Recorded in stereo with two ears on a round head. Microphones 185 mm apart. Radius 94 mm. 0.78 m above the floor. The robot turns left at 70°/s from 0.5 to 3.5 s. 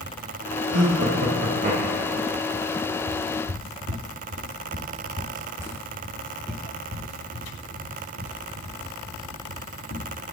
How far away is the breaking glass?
No breaking glass in this recording.